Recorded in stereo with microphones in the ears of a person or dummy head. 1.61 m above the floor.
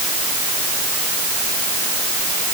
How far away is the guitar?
I don't hear a guitar.